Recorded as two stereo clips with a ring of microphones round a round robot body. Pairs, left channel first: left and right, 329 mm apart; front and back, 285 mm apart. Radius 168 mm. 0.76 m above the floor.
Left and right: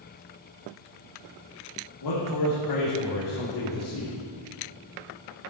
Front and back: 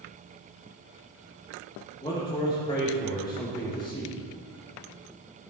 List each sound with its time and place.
2.0 s a man speaking: 70° left, 2.5 m